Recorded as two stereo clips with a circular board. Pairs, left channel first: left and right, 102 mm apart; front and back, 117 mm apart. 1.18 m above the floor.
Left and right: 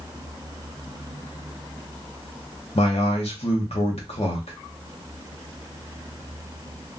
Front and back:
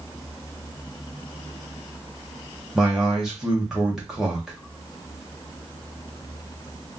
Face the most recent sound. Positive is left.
turn(degrees=95)